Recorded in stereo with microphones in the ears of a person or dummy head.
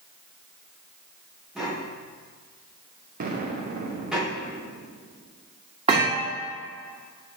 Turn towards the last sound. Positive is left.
turn(degrees=-30)  # may be behind; listen again after turning